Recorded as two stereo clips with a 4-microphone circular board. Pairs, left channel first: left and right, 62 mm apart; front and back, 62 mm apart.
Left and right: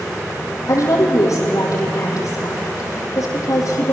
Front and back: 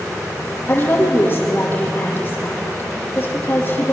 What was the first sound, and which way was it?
A woman speaking, 60° left.